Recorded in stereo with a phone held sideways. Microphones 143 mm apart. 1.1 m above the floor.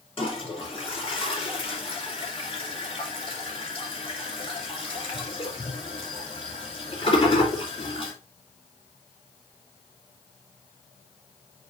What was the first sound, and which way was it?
A toilet flushing, 40° left (ahead or behind).